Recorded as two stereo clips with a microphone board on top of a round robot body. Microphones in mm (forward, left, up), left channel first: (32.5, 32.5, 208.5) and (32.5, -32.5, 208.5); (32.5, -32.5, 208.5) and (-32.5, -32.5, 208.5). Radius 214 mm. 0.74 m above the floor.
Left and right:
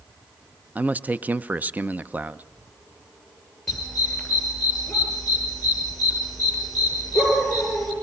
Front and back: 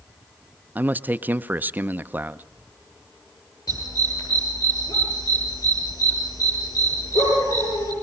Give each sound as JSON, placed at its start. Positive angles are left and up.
{"t": 0.8, "sound": "a man speaking", "azimuth_deg": -135, "distance_m": 0.9}
{"t": 3.7, "sound": "a dog barking", "azimuth_deg": 5, "distance_m": 9.0}